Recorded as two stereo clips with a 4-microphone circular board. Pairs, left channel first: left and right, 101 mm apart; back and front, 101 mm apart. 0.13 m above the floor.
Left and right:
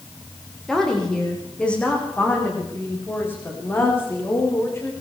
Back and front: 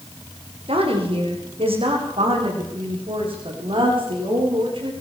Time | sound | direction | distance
0.7 | a woman speaking | 5° left | 7.5 m